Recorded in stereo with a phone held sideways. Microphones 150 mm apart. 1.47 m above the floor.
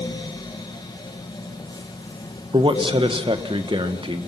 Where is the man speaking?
35° right (ahead or behind), 1.4 m.